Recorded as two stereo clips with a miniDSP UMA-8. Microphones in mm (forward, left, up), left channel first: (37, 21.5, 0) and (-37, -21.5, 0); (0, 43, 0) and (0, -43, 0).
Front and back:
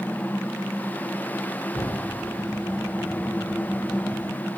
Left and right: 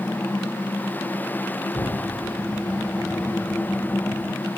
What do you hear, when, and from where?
1.7 s an explosion: 60° left, 6.5 m